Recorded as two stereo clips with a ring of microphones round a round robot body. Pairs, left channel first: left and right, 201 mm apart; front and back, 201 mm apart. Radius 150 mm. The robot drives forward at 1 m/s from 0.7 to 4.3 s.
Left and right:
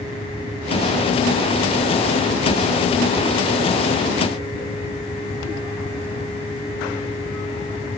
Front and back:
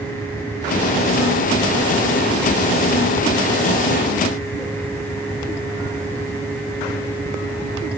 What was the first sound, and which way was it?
Only background noise.